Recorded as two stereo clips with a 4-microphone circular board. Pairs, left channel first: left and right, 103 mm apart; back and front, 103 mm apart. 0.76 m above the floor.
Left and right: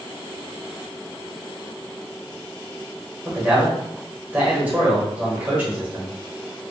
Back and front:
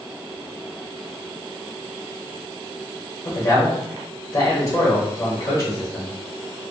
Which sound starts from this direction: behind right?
A man speaking, at 3.2 s.